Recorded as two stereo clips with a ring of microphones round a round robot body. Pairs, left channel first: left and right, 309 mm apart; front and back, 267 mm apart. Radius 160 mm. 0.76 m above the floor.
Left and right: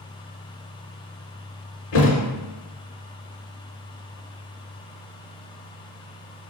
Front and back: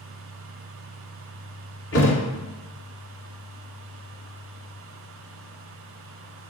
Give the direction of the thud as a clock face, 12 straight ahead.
11 o'clock.